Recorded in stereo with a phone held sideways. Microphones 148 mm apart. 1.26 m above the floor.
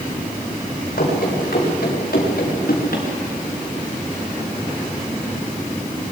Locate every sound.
1.0 s running footsteps: 80° left, 8.5 m; by 3.1 s 75° left (ahead or behind), 7 m